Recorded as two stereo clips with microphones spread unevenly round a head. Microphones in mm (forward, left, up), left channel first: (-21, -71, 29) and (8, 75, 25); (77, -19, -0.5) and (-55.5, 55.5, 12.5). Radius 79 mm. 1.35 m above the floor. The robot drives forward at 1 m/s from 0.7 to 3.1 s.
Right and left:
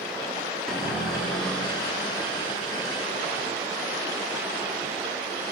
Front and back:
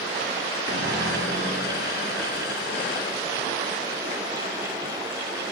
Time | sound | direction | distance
0.7 | a cupboard door | 170° left | 1.9 m